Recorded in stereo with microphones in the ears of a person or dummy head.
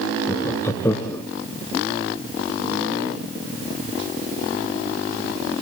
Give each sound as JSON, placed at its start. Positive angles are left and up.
{"t": 0.3, "sound": "laughter", "side_deg": 15, "distance_m": 0.7}